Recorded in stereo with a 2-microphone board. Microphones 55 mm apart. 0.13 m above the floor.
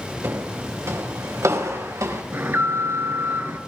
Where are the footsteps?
55° right (ahead or behind), 4.5 m; by 2.2 s 80° right, 5.5 m.